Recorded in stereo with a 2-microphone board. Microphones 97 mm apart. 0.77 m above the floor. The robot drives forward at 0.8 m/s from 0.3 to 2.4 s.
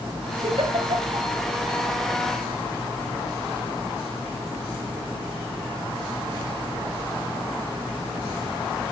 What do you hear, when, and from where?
0.4 s a giggle: 70° right (ahead or behind), 2.5 m; by 1.3 s 60° right (ahead or behind), 3 m